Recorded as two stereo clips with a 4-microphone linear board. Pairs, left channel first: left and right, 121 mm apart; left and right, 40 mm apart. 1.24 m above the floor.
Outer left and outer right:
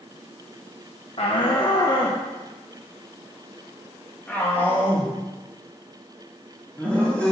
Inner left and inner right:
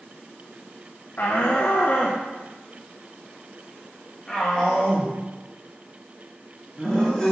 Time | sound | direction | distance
1.2 | a shout | 50° left (ahead or behind) | 0.9 m